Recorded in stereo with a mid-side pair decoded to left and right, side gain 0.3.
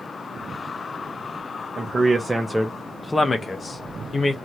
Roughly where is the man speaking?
Ahead right.